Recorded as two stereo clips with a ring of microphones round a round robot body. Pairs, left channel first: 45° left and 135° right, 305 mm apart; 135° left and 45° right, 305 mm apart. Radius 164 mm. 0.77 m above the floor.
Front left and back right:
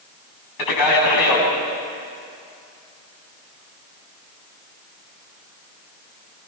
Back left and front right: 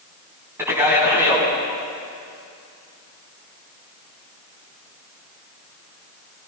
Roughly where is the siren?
No siren in this recording.